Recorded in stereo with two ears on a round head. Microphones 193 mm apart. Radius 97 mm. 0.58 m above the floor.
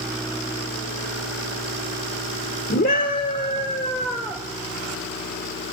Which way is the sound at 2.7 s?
45° left (ahead or behind).